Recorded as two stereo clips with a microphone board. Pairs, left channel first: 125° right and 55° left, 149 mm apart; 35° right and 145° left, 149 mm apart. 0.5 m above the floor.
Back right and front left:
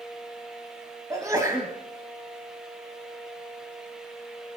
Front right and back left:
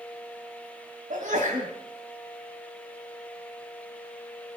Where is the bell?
I don't hear a bell.